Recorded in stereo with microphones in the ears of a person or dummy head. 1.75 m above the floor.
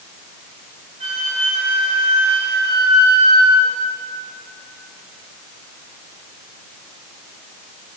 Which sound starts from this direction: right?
A flute, at 1.0 s.